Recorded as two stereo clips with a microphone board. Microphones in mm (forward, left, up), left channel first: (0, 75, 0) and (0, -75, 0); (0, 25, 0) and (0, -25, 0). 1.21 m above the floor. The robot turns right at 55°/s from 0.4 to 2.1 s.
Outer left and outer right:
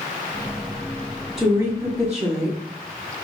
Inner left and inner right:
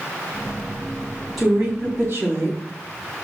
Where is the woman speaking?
175° right, 2.5 m; by 2.6 s 135° right, 2.5 m.